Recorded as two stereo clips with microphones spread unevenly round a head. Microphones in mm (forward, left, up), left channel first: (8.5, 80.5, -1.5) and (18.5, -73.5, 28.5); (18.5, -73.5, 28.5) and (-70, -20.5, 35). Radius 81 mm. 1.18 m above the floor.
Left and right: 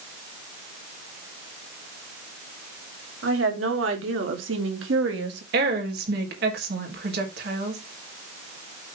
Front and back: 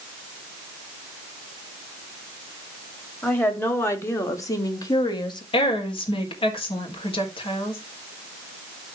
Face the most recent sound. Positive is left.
turn(degrees=-65)